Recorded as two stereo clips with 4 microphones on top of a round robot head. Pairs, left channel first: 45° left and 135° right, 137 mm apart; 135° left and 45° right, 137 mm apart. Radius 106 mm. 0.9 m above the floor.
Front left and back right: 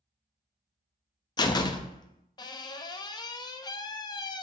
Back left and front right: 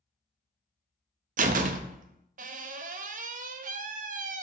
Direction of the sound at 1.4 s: 15° right.